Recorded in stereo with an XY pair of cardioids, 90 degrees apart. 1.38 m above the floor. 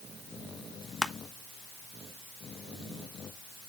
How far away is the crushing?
About 1.1 m.